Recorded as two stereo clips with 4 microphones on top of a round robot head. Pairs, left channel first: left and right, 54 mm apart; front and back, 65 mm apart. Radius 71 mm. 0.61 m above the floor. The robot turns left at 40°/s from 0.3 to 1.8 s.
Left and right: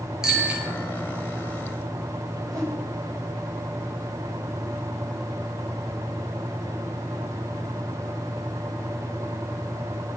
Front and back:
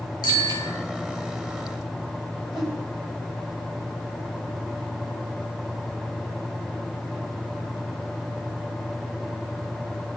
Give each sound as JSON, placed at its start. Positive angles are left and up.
{"t": 0.2, "sound": "a bicycle bell", "azimuth_deg": -10, "distance_m": 9.0}
{"t": 2.5, "sound": "a whoosh", "azimuth_deg": -95, "distance_m": 4.0}